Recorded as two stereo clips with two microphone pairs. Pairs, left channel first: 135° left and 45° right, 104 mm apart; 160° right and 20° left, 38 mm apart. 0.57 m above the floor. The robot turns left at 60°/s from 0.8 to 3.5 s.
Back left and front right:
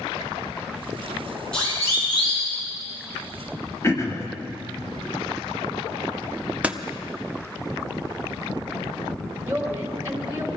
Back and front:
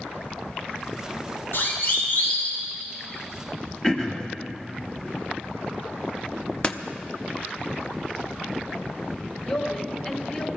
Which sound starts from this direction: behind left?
Throat clearing, at 3.8 s.